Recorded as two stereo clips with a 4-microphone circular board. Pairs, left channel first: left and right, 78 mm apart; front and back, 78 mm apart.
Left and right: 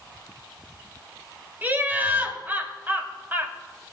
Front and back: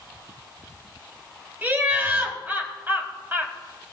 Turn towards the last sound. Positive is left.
turn(degrees=-135)